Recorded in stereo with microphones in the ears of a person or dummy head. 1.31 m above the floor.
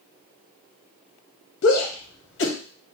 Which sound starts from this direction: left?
A shout, at 1.6 s.